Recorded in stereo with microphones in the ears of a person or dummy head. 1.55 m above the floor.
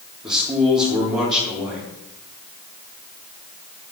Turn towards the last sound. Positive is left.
turn(degrees=-25)  # may be behind; listen again after turning